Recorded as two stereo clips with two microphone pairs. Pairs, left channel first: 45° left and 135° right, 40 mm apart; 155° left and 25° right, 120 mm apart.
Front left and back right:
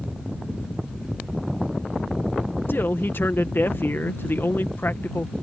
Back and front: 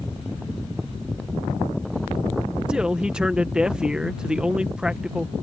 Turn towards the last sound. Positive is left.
turn(degrees=60)